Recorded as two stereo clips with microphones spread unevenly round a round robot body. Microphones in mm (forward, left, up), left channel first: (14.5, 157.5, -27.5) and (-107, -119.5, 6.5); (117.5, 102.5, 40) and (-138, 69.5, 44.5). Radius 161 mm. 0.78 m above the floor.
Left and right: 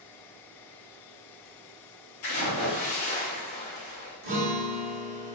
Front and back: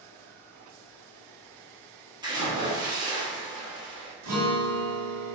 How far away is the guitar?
About 1.3 m.